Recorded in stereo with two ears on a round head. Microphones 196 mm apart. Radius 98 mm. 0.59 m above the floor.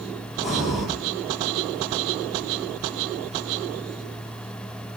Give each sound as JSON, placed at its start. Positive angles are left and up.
{"t": 0.4, "sound": "breathing", "side_deg": 0, "distance_m": 8.5}